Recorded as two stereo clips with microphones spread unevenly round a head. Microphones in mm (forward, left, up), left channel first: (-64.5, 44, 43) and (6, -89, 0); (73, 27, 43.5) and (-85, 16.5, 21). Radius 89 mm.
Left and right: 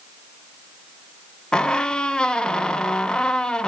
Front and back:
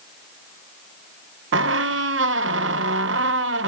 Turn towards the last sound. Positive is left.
turn(degrees=-160)